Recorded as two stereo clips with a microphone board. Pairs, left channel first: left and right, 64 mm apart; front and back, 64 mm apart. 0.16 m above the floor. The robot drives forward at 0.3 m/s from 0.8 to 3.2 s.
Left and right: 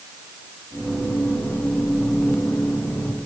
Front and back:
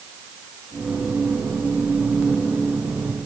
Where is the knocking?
I don't hear knocking.